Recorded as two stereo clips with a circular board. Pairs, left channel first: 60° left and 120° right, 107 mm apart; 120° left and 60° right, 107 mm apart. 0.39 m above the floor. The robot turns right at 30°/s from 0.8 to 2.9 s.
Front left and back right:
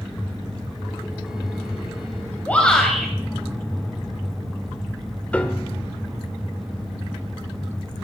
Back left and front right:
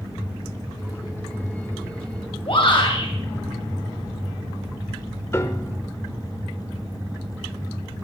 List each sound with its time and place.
2.5 s a shout: 130° left, 2 m; by 3.1 s 145° left, 2 m
5.3 s a piano: 115° left, 1.2 m